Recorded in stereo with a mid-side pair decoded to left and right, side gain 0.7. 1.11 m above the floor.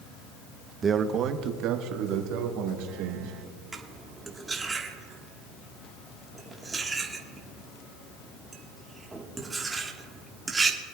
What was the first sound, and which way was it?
A man speaking, 25° right.